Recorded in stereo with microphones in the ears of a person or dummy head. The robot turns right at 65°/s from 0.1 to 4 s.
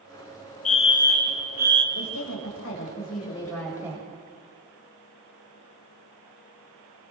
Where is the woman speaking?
65° left, 9 m; by 4.2 s 160° right, 9 m.